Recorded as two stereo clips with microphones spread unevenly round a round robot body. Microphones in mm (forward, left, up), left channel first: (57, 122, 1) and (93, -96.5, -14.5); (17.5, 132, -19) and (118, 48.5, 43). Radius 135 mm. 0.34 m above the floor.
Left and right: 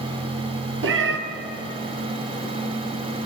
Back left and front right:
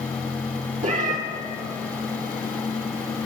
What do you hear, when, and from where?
0.8 s a cat meowing: 50° right, 0.9 m